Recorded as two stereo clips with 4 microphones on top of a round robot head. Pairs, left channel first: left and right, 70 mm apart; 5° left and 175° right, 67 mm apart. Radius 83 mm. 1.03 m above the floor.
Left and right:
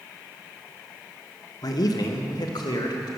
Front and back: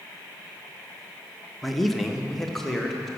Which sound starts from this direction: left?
A man speaking, at 1.6 s.